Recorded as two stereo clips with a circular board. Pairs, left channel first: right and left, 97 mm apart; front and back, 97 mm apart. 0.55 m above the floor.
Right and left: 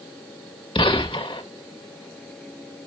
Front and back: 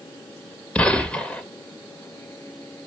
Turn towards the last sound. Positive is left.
turn(degrees=-75)